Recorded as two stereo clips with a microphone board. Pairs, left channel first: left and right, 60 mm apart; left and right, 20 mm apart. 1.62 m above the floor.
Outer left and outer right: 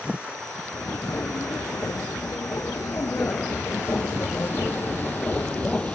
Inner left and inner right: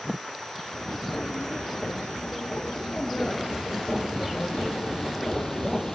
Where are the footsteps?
55° left (ahead or behind); by 6.0 s 20° left (ahead or behind).